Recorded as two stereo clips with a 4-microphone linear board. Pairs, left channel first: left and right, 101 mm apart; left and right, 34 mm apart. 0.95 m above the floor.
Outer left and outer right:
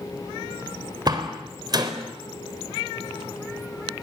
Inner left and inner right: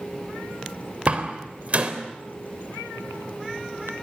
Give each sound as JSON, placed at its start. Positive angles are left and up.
{"t": 1.1, "sound": "a door slam", "side_deg": -45, "distance_m": 3.5}